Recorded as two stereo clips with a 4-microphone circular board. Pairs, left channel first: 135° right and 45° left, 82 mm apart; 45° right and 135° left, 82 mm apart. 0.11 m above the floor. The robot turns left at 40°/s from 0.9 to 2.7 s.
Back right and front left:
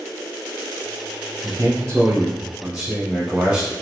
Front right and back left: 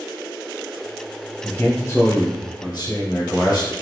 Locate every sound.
1.4 s a man speaking: 30° left, 2.0 m; by 3.7 s 20° right, 2.0 m